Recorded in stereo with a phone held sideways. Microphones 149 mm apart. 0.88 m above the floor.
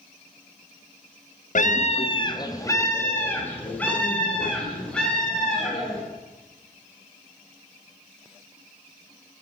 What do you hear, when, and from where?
1.6 s a scream: 60° left (ahead or behind), 0.5 m; by 6.0 s 5° left (ahead or behind), 4 m